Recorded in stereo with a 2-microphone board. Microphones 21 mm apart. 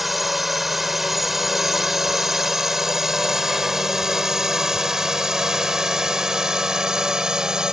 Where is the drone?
5° right (ahead or behind); by 7.7 s 30° right (ahead or behind).